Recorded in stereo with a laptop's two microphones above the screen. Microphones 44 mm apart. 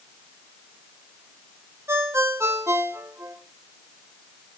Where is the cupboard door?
No cupboard door in this recording.